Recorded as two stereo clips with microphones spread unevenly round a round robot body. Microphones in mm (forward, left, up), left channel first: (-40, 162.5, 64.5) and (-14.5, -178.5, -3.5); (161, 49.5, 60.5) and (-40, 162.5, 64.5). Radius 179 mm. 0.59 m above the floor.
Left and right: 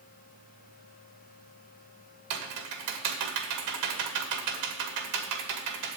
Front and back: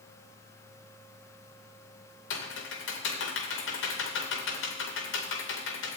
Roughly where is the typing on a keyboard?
Ahead right.